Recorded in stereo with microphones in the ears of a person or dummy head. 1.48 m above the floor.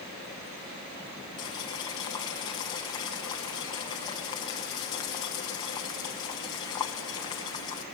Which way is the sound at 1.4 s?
20° left (ahead or behind).